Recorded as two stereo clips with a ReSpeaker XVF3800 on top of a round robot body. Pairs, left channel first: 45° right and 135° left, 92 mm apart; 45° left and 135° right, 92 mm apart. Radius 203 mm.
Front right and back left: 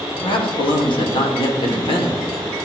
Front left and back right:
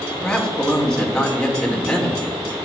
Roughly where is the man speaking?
Ahead right.